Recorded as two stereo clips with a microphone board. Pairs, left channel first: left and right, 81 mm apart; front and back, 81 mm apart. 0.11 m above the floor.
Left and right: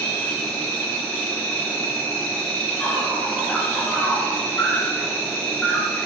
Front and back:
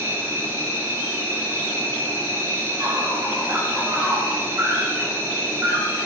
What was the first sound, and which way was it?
An insect, 150° left.